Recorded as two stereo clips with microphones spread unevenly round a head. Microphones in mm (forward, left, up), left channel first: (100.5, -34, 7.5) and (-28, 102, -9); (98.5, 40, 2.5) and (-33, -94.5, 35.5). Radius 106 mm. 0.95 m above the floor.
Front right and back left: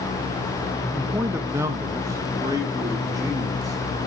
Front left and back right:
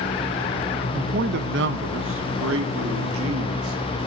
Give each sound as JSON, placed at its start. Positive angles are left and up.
{"t": 0.9, "sound": "a man speaking", "azimuth_deg": -155, "distance_m": 0.7}